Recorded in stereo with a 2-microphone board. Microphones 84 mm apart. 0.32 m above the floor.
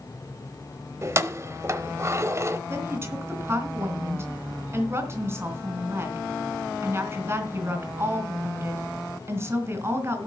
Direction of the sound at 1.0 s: 35° right (ahead or behind).